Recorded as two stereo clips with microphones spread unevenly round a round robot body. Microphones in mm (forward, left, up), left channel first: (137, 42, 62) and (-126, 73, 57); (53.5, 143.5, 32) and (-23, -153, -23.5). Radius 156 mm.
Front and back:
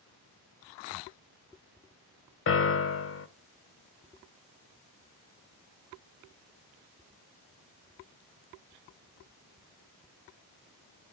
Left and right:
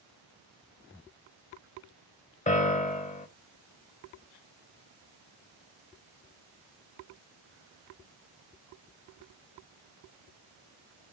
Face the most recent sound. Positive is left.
turn(degrees=5)